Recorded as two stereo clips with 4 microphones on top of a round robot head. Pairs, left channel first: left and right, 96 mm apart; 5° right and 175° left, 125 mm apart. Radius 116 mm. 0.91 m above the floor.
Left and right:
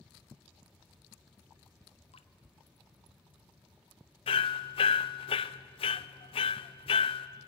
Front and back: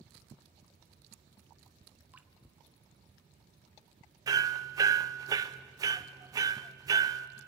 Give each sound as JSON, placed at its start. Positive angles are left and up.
{"t": 2.1, "sound": "dripping", "azimuth_deg": 100, "distance_m": 1.1}
{"t": 4.3, "sound": "hammering", "azimuth_deg": 115, "distance_m": 0.7}